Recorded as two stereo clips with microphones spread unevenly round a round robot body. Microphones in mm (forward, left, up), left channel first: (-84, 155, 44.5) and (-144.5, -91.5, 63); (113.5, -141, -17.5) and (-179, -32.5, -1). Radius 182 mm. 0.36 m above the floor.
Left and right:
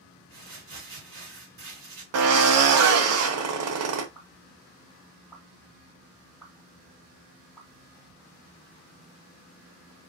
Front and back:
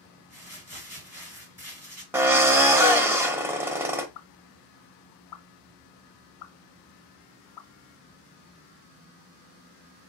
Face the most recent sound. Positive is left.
turn(degrees=-10)